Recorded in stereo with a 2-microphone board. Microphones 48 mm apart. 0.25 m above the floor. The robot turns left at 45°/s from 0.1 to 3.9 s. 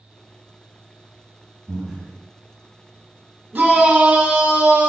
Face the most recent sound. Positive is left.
turn(degrees=-30)  # may be behind; listen again after turning